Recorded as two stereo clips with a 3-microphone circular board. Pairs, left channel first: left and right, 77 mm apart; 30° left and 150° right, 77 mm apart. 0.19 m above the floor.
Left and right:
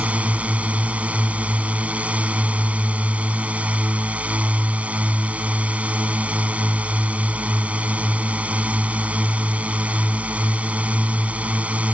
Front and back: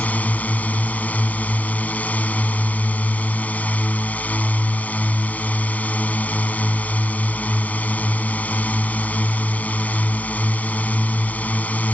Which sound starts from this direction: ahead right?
A drone, at 0.0 s.